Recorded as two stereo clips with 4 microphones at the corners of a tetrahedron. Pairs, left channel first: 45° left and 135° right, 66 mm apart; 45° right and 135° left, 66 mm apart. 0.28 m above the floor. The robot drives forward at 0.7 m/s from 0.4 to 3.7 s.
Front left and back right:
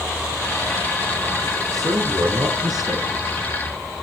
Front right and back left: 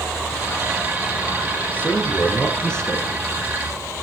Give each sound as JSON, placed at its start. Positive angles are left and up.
{"t": 1.7, "sound": "a man speaking", "azimuth_deg": -115, "distance_m": 3.5}